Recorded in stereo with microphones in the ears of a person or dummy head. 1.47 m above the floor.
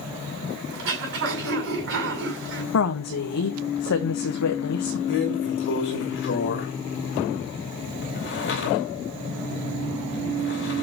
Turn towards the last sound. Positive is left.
turn(degrees=65)  # may be behind; listen again after turning